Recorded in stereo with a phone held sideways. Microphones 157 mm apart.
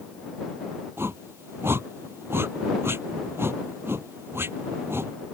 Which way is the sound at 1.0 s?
15° right (ahead or behind).